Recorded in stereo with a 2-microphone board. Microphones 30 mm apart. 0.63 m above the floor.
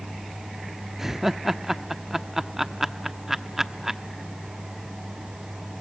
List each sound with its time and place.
1.0 s laughter: 15° right (ahead or behind), 0.8 m